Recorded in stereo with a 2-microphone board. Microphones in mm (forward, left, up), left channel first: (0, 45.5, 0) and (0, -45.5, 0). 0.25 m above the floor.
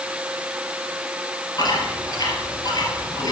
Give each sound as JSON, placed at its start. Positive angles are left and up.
{"t": 1.6, "sound": "chewing", "side_deg": 45, "distance_m": 3.0}